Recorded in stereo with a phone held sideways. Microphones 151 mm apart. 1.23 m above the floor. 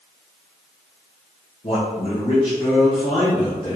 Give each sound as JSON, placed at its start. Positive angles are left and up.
{"t": 1.6, "sound": "a man speaking", "side_deg": 55, "distance_m": 1.1}